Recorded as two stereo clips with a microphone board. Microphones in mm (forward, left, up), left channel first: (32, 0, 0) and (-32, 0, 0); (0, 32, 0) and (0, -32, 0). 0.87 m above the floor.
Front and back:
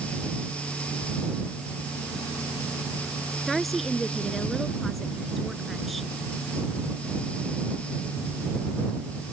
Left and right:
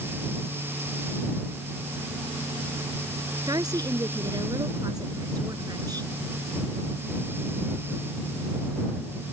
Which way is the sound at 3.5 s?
90° right.